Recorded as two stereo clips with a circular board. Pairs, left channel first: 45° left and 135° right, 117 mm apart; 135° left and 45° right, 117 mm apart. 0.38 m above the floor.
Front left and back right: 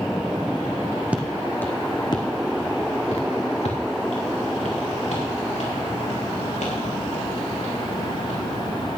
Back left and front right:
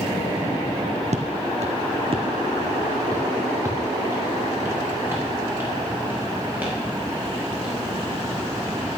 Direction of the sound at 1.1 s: 55° right.